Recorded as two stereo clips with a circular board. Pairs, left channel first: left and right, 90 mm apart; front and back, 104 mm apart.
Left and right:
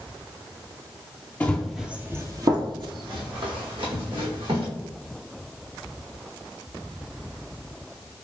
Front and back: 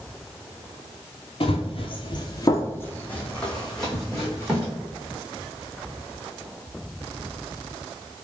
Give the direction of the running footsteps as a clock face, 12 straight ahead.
11 o'clock.